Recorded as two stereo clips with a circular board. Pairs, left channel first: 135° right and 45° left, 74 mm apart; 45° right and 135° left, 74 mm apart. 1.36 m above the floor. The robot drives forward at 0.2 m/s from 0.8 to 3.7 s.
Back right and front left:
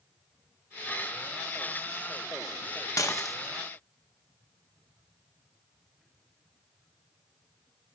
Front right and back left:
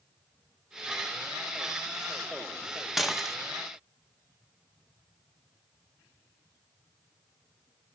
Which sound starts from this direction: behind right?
Dishes clattering, at 3.0 s.